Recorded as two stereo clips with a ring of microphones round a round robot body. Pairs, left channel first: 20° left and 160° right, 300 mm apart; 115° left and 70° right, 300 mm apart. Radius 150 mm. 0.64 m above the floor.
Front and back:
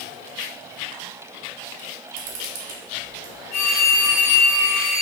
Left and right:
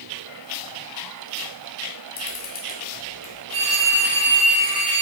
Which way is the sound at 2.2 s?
170° left.